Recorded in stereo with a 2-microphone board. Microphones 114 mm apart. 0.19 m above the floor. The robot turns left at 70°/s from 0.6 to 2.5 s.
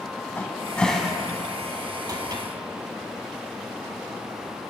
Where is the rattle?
I don't hear a rattle.